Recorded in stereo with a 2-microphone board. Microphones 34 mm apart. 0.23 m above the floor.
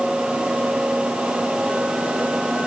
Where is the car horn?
I don't hear a car horn.